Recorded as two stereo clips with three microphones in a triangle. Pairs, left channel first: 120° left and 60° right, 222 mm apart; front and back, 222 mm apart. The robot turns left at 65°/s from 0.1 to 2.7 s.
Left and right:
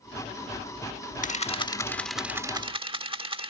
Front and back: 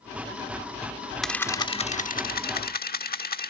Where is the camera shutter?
90° left; by 3.5 s 5° right.